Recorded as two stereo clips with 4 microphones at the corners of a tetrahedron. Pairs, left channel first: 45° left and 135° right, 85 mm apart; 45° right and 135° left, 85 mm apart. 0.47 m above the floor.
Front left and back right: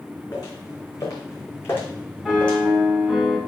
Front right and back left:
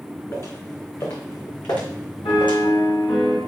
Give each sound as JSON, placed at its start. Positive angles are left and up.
{"t": 0.3, "sound": "footsteps", "azimuth_deg": 5, "distance_m": 2.5}
{"t": 2.2, "sound": "a piano", "azimuth_deg": -45, "distance_m": 2.5}